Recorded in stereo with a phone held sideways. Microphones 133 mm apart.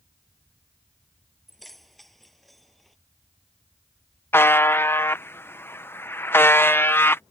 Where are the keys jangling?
Centre (ahead or behind).